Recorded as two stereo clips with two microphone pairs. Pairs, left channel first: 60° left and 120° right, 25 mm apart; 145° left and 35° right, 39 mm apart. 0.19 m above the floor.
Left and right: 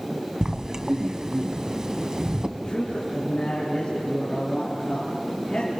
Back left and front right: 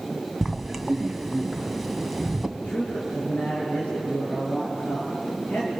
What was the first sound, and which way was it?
Writing, 125° right.